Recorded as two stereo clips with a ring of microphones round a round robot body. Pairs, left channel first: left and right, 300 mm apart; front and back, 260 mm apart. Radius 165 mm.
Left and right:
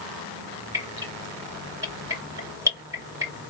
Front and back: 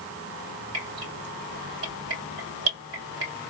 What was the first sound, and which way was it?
Dripping, 170° right.